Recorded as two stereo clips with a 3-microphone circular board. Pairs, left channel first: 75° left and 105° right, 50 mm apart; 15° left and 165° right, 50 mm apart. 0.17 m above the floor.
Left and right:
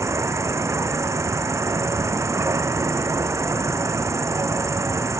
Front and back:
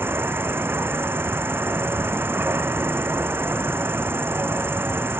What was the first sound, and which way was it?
An insect, 125° right.